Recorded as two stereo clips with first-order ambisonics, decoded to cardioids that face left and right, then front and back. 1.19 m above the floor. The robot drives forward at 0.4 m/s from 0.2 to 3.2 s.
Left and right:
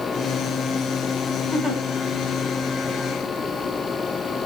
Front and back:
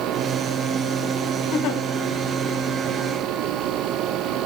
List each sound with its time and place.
1.5 s a giggle: 10° right, 2 m; by 1.8 s 15° right, 1.9 m